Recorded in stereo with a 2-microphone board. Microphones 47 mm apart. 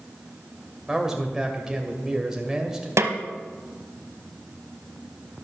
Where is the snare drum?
80° right, 0.9 m.